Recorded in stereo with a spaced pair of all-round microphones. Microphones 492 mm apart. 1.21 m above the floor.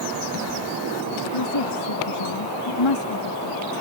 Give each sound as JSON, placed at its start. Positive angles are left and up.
{"t": 1.3, "sound": "a woman speaking", "side_deg": 65}